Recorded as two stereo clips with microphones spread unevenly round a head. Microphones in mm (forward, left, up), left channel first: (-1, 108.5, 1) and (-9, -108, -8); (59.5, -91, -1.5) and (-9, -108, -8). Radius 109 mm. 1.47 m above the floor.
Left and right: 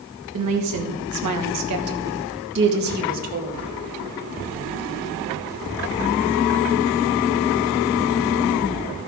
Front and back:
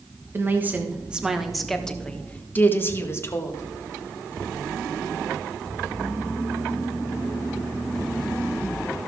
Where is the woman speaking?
105° right, 1.5 m; by 3.6 s 35° right, 2.0 m.